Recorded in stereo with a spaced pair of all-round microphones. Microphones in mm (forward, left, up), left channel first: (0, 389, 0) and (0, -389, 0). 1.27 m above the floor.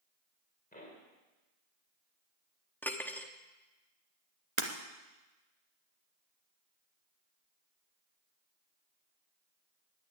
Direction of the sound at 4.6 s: 40° right (ahead or behind).